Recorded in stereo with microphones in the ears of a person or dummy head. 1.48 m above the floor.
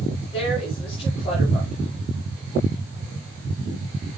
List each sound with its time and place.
0.3 s a woman speaking: 35° left (ahead or behind), 9.5 m